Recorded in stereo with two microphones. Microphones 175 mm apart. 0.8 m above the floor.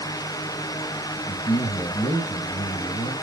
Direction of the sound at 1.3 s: 35° left (ahead or behind).